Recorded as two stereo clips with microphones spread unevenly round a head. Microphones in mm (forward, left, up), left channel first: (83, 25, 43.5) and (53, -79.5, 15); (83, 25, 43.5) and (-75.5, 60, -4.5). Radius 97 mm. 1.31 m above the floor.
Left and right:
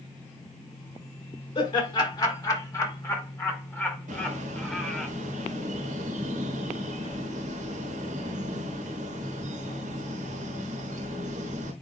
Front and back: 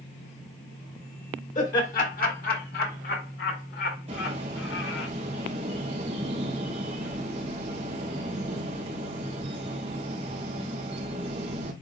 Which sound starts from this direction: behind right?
A bird, at 4.1 s.